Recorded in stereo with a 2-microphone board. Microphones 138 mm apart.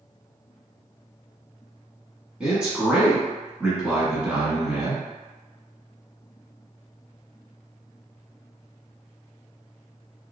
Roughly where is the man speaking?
Centre.